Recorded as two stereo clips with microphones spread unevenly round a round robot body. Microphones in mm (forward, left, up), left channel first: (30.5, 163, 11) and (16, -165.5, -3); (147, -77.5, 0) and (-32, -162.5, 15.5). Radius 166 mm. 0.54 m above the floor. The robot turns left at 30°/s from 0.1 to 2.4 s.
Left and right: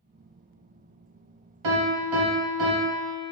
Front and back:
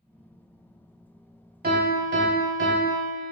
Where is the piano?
110° right, 1.0 m; by 3.3 s 135° right, 1.0 m.